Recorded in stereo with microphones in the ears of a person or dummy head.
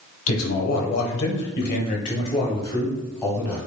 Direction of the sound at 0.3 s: 80° left.